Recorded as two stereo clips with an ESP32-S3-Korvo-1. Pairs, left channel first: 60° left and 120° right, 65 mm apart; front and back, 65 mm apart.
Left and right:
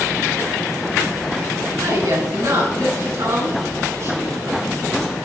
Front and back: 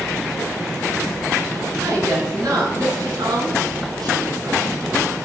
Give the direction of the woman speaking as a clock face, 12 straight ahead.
5 o'clock.